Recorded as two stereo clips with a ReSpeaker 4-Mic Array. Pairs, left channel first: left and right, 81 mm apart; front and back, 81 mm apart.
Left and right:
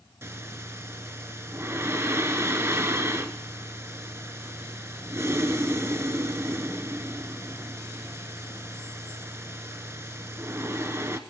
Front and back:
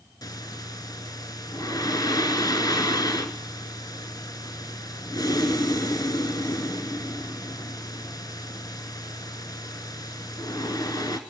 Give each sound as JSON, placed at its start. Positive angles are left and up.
{"t": 0.2, "sound": "breathing", "azimuth_deg": -35, "distance_m": 0.9}